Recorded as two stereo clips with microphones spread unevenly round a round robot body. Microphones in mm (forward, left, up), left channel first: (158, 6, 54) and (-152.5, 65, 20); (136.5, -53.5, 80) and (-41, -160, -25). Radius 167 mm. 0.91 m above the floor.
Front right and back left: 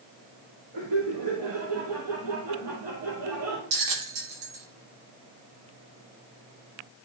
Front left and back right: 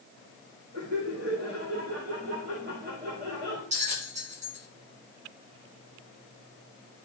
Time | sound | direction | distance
0.7 | laughter | straight behind | 4 m
3.7 | a bell | 155° left | 3.5 m